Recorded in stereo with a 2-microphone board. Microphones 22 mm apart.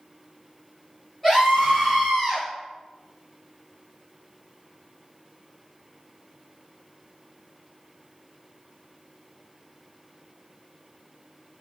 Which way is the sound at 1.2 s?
20° left (ahead or behind).